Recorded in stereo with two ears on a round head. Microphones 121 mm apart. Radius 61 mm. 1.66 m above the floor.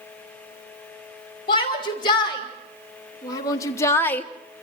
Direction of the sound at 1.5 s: 40° left (ahead or behind).